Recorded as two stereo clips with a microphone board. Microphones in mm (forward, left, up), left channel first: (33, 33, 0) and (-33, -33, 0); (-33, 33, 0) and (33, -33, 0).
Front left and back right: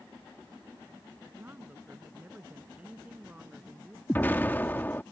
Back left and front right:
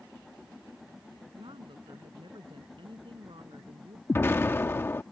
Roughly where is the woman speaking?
Right.